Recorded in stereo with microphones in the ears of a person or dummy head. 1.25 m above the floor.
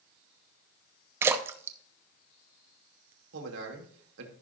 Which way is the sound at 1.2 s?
15° right (ahead or behind).